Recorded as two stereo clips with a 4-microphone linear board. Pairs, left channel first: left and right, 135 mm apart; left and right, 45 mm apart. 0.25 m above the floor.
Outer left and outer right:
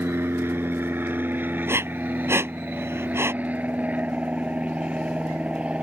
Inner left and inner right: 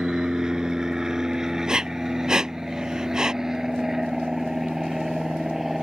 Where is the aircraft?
15° right (ahead or behind); by 5.8 s 10° right (ahead or behind).